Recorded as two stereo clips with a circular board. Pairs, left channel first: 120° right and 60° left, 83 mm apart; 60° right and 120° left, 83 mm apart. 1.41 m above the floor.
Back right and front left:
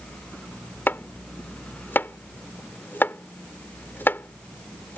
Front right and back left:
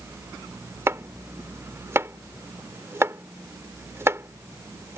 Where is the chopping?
175° left.